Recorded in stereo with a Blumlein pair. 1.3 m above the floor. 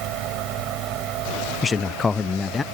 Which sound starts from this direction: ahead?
A man speaking, at 1.6 s.